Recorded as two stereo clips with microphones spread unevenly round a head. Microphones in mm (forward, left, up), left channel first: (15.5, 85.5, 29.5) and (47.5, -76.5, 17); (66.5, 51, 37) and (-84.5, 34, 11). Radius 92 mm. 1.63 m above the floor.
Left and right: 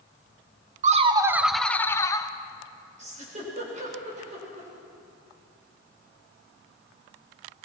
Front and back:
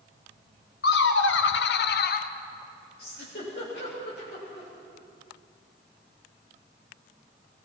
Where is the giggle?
30° right, 7 m.